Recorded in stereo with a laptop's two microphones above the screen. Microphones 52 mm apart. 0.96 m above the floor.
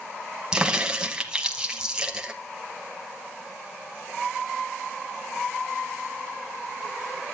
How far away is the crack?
About 0.9 m.